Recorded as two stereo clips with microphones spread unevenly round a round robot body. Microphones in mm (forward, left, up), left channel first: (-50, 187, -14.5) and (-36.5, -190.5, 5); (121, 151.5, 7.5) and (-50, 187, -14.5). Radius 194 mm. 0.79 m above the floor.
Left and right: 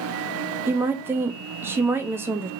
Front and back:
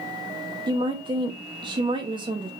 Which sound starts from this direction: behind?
A woman speaking, at 0.7 s.